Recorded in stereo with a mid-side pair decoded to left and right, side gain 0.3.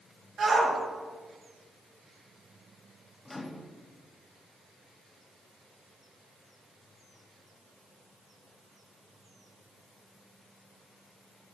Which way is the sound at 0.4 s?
70° right.